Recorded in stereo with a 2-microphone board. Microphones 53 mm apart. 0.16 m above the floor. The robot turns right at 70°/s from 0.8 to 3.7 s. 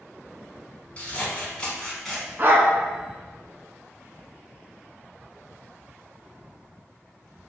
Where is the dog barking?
40° right (ahead or behind), 0.5 m; by 2.7 s 50° right (ahead or behind), 0.5 m.